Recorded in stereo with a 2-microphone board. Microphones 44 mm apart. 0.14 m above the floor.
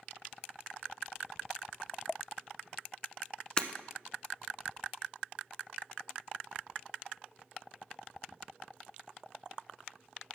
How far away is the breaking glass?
About 0.7 m.